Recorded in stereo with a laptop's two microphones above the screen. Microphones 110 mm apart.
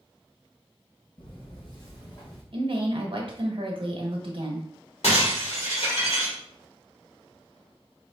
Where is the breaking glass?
80° left, 1.7 m.